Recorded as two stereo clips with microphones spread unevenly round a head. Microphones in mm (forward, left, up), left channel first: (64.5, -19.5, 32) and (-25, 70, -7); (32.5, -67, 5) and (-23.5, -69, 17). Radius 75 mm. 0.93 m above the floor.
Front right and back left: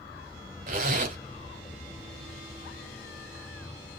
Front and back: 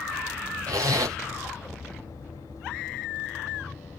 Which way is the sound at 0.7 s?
170° left.